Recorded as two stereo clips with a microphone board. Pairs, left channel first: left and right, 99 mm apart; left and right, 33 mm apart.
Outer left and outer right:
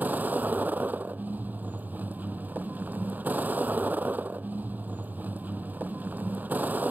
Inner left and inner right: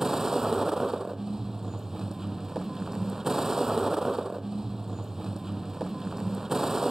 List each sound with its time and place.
0.0 s a vehicle: 15° right (ahead or behind)